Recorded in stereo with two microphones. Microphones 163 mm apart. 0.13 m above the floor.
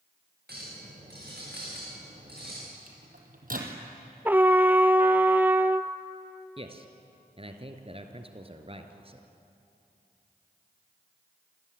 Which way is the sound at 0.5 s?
85° right.